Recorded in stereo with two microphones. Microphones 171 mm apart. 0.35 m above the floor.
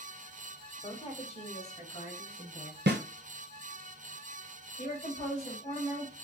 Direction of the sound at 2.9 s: 80° right.